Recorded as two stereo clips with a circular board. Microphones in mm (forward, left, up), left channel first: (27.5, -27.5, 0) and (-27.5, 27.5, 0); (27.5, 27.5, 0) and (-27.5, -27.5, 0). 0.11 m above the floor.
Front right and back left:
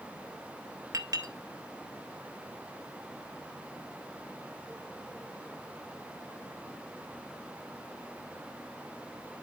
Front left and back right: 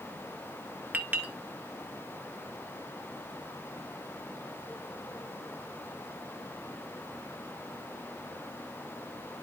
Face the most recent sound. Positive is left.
turn(degrees=160)